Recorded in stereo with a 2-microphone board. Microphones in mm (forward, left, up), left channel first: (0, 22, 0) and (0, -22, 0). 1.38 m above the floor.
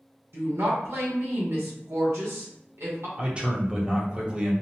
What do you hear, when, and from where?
0.3 s a woman speaking: 75° right (ahead or behind), 1.1 m
3.2 s a man speaking: 25° right (ahead or behind), 0.8 m